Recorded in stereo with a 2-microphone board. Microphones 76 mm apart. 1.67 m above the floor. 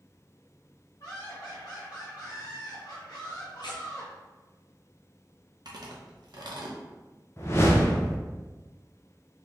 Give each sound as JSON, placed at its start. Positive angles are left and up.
{"t": 1.0, "sound": "laughter", "side_deg": 50, "distance_m": 0.9}
{"t": 3.6, "sound": "tearing paper", "side_deg": 75, "distance_m": 0.8}
{"t": 5.7, "sound": "chewing", "side_deg": -65, "distance_m": 0.7}
{"t": 7.4, "sound": "a whoosh", "side_deg": 35, "distance_m": 0.7}